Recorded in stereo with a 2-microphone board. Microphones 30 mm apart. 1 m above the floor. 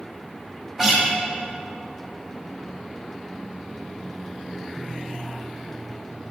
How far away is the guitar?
About 1.9 m.